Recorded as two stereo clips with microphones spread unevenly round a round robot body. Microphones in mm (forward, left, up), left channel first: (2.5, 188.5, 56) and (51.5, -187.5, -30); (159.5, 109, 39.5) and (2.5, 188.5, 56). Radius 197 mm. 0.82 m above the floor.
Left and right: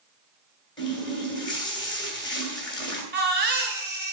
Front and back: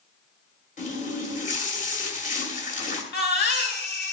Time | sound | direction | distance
0.8 | a running tap | 20° left | 2.5 m
3.1 | a baby crying | 15° right | 2.5 m